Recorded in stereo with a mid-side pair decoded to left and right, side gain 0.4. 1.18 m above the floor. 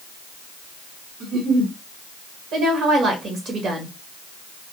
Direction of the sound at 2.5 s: 65° right.